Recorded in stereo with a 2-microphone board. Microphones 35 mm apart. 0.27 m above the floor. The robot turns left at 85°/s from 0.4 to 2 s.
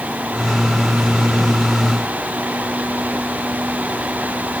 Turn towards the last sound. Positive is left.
No sound to turn to.